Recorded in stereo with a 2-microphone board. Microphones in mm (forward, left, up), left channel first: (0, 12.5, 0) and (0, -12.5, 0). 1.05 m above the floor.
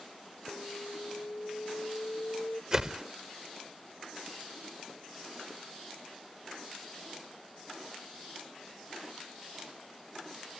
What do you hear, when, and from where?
0.5 s an alarm: 70° left (ahead or behind)
2.7 s a whoosh: 30° right (ahead or behind)